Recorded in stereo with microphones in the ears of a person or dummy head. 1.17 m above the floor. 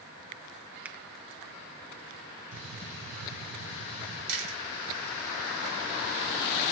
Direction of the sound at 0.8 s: 5° right (ahead or behind).